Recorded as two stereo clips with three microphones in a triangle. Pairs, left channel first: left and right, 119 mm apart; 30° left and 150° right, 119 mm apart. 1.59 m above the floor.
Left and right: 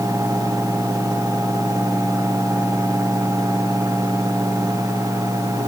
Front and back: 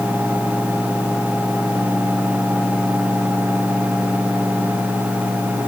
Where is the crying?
No crying in this recording.